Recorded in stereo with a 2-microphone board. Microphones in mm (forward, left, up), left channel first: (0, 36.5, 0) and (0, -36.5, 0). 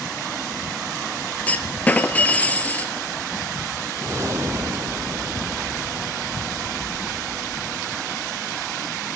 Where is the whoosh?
40° right (ahead or behind), 0.9 m.